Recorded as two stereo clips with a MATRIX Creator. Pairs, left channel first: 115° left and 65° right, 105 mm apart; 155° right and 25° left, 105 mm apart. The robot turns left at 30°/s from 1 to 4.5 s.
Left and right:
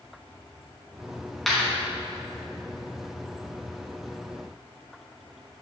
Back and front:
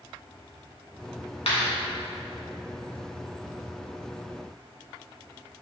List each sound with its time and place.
1.5 s a clap: 160° right, 3 m; by 1.7 s 165° right, 3 m